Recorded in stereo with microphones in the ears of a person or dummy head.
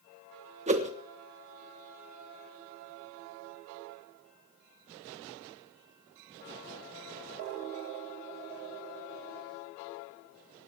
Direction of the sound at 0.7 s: 35° right (ahead or behind).